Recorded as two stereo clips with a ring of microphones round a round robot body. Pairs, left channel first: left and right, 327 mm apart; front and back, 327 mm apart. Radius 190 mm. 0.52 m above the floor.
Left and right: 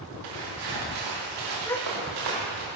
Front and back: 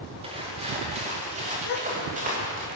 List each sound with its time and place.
0.2 s footsteps: 110° right, 6 m; by 2.6 s 115° right, 8 m
1.6 s a gasp: 10° left, 3 m